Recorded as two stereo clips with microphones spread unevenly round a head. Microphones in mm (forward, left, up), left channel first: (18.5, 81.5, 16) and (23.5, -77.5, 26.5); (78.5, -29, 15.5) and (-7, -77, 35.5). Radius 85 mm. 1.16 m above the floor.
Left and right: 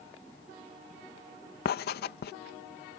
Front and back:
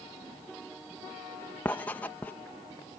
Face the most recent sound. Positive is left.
turn(degrees=100)